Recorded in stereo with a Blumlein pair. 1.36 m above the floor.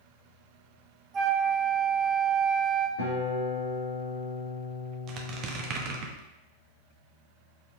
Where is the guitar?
65° left, 2.5 m.